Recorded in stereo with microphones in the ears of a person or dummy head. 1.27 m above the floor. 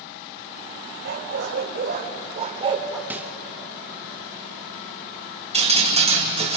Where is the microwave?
5° right (ahead or behind), 0.8 m.